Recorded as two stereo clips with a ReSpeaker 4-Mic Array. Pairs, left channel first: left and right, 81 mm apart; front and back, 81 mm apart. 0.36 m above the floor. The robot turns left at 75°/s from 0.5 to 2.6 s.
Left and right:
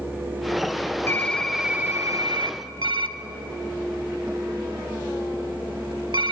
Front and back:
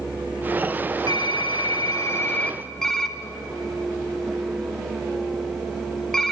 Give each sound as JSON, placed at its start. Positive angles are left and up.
{"t": 1.1, "sound": "typing on a keyboard", "azimuth_deg": 30, "distance_m": 0.5}